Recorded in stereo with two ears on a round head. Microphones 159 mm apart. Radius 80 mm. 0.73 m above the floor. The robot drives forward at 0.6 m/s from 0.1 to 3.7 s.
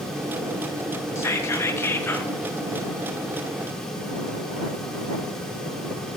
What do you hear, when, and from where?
1.1 s whispering: 15° left (ahead or behind), 0.7 m; by 2.3 s 10° left (ahead or behind), 0.8 m